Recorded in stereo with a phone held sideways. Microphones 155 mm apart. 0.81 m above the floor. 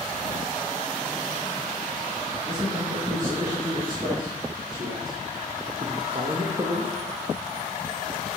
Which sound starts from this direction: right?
A man speaking, at 2.5 s.